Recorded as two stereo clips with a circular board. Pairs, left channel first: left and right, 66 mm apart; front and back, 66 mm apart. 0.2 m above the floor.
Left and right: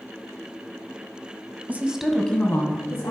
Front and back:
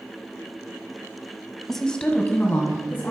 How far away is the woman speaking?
About 1.1 m.